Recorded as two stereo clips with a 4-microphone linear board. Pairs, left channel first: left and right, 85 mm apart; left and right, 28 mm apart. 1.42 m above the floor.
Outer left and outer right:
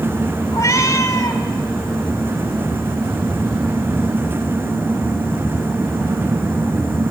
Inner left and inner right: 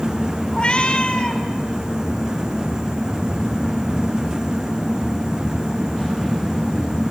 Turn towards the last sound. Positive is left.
turn(degrees=50)  # may be behind; listen again after turning